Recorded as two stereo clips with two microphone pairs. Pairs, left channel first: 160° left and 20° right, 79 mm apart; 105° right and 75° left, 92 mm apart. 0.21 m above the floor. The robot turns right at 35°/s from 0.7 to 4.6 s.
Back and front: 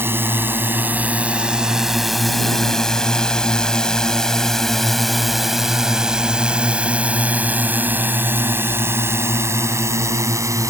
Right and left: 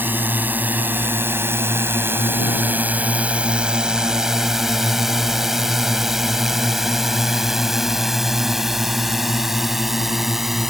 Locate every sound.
0.0 s a drone: 25° left; by 10.7 s 10° right